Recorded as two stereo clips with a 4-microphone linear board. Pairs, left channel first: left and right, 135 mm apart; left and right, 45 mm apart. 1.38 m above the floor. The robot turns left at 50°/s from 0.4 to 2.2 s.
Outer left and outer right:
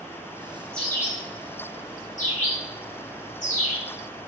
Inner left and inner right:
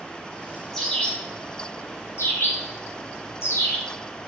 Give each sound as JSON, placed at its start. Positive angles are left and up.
{"t": 0.7, "sound": "a bird", "side_deg": 5, "distance_m": 4.0}